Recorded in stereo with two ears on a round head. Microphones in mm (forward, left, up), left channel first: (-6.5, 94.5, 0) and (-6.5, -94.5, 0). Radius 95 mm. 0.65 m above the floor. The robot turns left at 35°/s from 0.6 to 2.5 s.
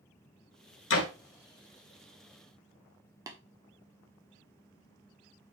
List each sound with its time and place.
0.9 s a door slam: 65° left (ahead or behind), 1.8 m; by 1.1 s 75° left (ahead or behind), 1.8 m
3.3 s tapping: 15° right (ahead or behind), 1.2 m